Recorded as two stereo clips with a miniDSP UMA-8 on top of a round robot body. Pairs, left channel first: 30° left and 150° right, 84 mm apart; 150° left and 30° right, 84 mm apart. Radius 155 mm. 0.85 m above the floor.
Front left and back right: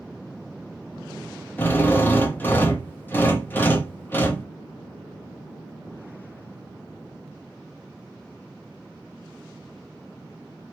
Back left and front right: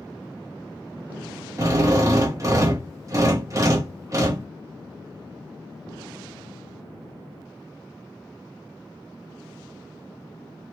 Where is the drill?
20° right, 1.1 m.